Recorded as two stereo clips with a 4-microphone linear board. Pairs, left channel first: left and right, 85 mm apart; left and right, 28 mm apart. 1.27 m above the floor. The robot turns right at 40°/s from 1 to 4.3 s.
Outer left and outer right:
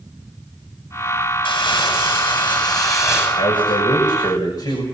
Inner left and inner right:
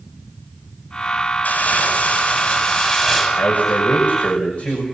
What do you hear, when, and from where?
1.4 s crumpling: 80° left, 8.5 m; by 3.3 s 150° left, 8.5 m
3.4 s a man speaking: 90° left, 6.5 m; by 4.8 s 130° left, 6.5 m